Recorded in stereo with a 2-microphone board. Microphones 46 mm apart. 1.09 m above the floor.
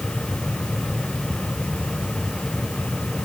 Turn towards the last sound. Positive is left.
No sound to turn to.